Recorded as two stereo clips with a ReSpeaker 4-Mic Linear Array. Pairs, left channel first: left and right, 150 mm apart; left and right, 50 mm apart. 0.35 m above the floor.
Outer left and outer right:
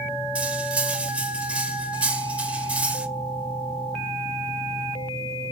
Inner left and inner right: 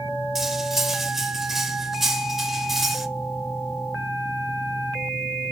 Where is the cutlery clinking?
10° right (ahead or behind), 0.7 m.